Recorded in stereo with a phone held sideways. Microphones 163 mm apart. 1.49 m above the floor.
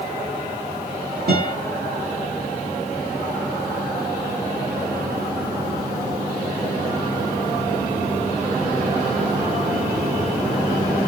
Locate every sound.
1.3 s a guitar: 75° right (ahead or behind), 1.5 m